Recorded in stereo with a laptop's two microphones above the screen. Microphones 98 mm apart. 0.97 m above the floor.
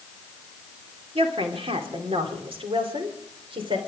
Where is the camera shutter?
I don't hear a camera shutter.